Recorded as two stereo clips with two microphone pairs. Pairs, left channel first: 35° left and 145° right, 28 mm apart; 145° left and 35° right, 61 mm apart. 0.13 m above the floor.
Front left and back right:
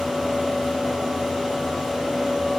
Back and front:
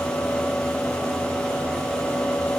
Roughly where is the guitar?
I don't hear a guitar.